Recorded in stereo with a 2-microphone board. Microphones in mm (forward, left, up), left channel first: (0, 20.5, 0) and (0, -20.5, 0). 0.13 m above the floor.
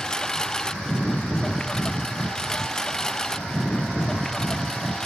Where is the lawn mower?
20° left (ahead or behind); by 5.1 s 15° left (ahead or behind).